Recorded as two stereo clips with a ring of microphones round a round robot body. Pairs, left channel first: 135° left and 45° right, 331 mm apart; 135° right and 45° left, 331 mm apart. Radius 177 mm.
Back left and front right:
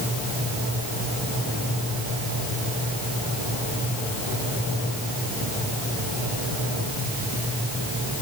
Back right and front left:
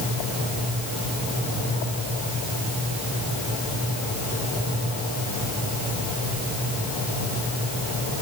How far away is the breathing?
No breathing in this recording.